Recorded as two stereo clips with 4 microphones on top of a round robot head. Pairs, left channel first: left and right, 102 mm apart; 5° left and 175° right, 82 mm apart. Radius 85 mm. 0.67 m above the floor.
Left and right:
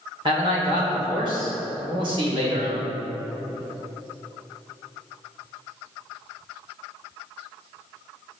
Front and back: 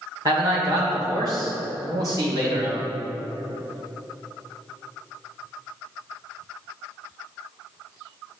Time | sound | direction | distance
0.2 | a man speaking | 130° right | 2 m